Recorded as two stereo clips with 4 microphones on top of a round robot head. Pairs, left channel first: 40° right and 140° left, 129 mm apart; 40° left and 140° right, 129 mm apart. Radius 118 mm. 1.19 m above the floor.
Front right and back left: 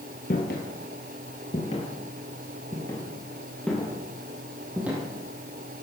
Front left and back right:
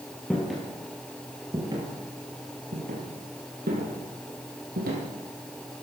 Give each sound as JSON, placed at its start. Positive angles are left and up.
{"t": 0.3, "sound": "footsteps", "azimuth_deg": -45, "distance_m": 2.0}